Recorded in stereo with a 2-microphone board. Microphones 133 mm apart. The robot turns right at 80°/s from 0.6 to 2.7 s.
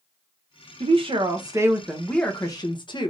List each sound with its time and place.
0.8 s a woman speaking: 95° right, 0.8 m; by 3.1 s 55° left, 0.8 m